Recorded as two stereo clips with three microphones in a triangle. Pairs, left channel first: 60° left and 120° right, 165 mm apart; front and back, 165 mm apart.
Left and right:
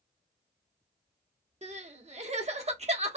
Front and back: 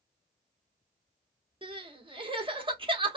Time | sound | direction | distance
1.6 | crying | 140° right | 0.9 m